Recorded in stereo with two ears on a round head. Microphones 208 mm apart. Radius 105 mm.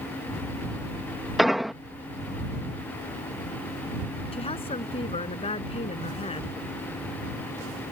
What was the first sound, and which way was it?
An explosion, centre (ahead or behind).